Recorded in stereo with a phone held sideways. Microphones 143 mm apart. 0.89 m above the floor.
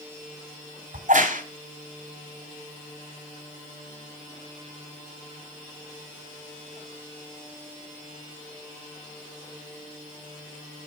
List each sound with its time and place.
0.9 s a crack: 60° right (ahead or behind), 3 m